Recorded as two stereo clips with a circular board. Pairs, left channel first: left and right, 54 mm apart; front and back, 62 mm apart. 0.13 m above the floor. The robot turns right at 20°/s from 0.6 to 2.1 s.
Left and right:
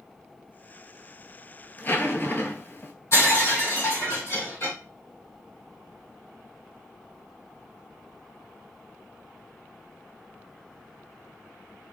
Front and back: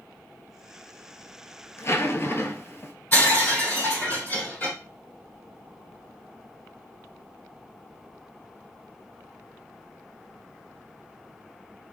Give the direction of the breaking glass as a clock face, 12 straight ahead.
10 o'clock.